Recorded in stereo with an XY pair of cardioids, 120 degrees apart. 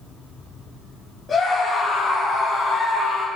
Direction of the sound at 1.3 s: 25° left.